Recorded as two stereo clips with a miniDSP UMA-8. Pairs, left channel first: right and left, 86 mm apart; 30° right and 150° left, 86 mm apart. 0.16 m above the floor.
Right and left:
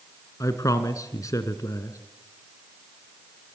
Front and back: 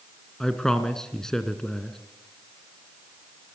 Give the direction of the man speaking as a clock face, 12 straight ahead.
4 o'clock.